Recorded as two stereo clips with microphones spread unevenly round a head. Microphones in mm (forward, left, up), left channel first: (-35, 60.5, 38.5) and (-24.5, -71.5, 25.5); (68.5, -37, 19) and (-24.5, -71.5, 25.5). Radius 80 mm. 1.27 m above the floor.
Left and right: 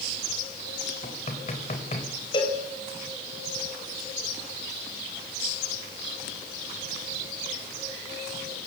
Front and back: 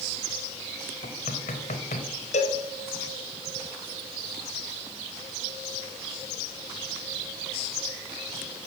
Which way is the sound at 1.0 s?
45° left.